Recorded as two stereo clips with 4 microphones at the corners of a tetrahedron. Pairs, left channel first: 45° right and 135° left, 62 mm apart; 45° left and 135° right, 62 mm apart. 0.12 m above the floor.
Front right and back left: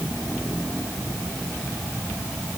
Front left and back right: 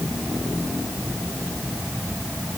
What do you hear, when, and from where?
Only background noise.